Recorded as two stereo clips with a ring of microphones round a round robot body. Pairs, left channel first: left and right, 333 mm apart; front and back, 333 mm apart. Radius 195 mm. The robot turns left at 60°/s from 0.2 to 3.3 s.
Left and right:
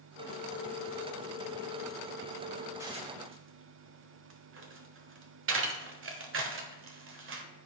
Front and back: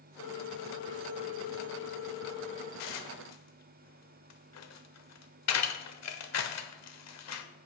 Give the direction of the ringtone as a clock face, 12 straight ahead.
9 o'clock.